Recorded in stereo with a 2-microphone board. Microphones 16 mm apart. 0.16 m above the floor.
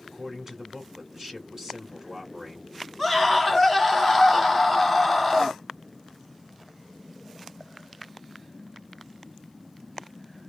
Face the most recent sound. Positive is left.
turn(degrees=-5)  # may be behind; listen again after turning